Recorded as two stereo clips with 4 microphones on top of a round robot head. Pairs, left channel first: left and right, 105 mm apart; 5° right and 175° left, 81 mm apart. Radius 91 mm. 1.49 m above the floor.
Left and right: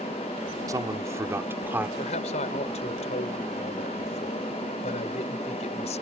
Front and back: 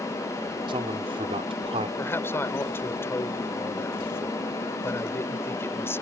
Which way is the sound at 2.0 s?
55° left.